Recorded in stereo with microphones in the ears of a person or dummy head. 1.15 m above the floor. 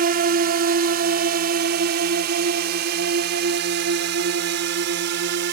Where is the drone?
40° right (ahead or behind); by 5.5 s 55° right (ahead or behind).